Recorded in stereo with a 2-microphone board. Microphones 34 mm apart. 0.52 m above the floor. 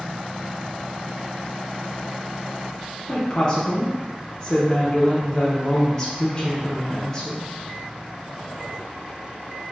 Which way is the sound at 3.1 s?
25° left (ahead or behind).